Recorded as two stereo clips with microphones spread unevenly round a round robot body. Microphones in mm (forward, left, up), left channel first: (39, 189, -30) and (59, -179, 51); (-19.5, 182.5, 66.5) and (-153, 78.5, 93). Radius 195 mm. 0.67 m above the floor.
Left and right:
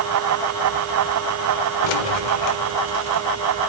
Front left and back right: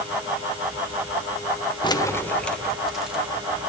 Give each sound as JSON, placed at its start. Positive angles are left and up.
{"t": 1.8, "sound": "keys jangling", "azimuth_deg": 105, "distance_m": 1.2}